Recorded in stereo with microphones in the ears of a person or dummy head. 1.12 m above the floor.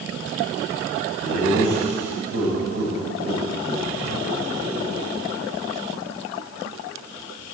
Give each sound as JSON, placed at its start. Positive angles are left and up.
{"t": 1.2, "sound": "laughter", "side_deg": -80, "distance_m": 7.5}